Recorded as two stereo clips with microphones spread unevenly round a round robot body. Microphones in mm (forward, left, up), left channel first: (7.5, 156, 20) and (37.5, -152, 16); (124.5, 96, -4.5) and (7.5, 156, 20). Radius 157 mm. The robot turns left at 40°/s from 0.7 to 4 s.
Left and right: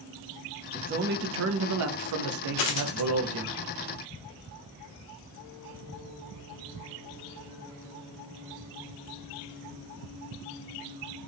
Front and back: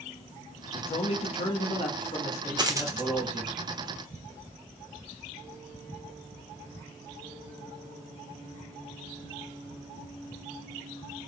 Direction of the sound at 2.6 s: 95° left.